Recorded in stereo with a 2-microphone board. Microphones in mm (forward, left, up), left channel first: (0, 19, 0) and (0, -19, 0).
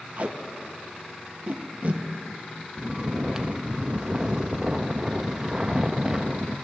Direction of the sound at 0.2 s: 50° right (ahead or behind).